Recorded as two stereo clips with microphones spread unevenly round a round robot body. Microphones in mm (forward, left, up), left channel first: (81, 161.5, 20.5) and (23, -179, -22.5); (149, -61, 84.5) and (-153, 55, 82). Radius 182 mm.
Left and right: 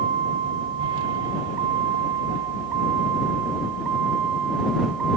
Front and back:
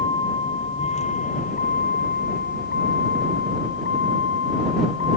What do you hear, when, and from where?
0.0 s a vehicle: 95° right; by 5.2 s 70° right